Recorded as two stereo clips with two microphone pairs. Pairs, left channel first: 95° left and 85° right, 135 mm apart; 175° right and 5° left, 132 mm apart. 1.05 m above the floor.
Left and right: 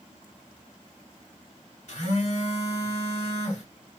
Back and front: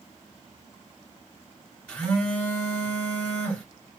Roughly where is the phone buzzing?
Left.